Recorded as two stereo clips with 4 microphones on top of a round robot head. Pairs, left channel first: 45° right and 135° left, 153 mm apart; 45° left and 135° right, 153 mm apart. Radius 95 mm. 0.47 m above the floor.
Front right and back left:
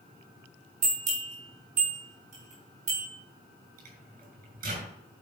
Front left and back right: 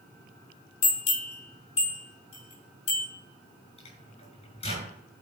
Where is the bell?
95° left, 6 m.